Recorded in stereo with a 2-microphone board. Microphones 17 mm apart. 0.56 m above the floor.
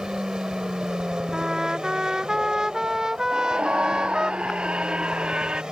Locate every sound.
0.0 s an aircraft: 45° right (ahead or behind)
1.3 s a trumpet: 35° right (ahead or behind)
3.3 s a scream: 85° right